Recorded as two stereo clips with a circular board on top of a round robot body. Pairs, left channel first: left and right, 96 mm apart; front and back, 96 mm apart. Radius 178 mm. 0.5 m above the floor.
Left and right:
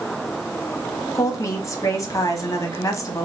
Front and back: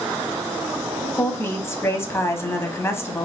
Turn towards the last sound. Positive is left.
turn(degrees=50)